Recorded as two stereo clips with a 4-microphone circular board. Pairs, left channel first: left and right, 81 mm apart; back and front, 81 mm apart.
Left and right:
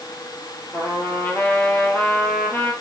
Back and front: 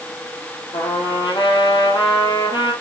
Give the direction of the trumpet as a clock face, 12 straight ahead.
7 o'clock.